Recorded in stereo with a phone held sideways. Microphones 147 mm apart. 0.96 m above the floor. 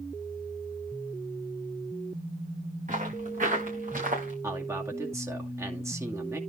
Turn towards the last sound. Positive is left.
turn(degrees=-20)  # may be behind; listen again after turning